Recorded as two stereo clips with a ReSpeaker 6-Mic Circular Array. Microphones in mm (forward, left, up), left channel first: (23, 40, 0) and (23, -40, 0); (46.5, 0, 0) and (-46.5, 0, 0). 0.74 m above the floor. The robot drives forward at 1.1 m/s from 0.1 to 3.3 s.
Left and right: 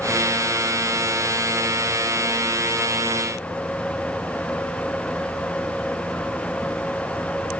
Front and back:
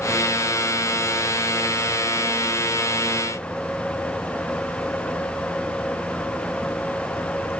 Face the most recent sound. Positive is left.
No sound to turn to.